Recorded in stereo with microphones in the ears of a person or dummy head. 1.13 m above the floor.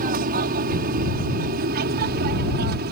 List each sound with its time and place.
0.0 s an aircraft: 45° right (ahead or behind); by 2.9 s 50° right (ahead or behind)